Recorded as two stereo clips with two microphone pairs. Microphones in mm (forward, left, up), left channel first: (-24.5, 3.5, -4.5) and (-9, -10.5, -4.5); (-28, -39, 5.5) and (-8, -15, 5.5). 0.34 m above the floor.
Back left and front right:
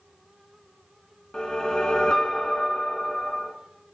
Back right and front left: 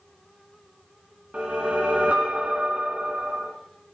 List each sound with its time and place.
1.3 s a whoosh: 95° left, 2 m